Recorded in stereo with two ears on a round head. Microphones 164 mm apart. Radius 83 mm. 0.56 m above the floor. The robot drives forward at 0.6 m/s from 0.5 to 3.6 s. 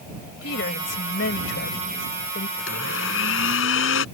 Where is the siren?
No siren in this recording.